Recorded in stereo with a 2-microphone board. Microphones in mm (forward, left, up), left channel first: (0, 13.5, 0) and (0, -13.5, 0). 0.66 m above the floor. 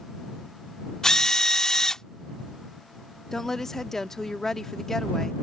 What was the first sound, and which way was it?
A drill, 25° left (ahead or behind).